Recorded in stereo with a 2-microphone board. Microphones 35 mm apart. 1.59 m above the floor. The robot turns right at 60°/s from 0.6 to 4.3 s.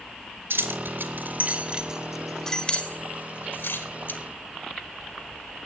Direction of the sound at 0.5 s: 75° right (ahead or behind).